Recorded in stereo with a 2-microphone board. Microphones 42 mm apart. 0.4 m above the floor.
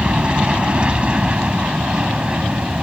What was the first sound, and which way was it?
An aircraft, 25° right (ahead or behind).